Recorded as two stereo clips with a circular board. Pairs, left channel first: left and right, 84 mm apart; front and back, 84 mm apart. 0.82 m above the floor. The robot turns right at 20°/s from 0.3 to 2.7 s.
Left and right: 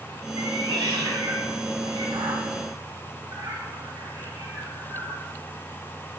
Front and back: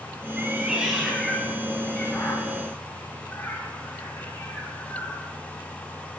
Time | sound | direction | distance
0.4 | a cat meowing | 105° right | 2.5 m